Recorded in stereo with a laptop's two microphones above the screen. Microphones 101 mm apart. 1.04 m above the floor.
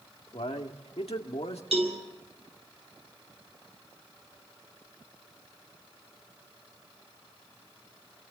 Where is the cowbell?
80° right, 5 m.